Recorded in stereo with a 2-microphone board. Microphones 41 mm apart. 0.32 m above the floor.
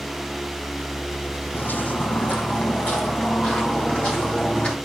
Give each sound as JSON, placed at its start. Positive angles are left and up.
{"t": 1.5, "sound": "footsteps", "side_deg": 55, "distance_m": 0.8}